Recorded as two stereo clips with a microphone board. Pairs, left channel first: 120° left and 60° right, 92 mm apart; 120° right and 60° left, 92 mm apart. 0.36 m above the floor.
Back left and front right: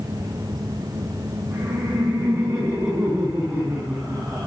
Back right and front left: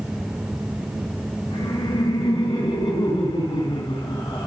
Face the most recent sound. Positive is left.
turn(degrees=-140)